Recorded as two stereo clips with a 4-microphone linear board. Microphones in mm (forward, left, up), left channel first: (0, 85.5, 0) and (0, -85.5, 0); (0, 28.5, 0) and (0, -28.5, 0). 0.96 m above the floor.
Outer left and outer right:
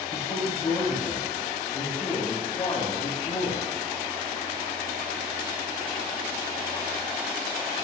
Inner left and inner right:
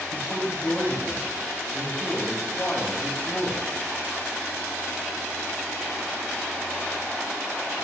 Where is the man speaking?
35° left (ahead or behind), 2.5 m.